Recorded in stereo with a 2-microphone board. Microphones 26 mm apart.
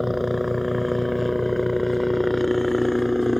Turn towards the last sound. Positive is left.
turn(degrees=5)  # may be behind; listen again after turning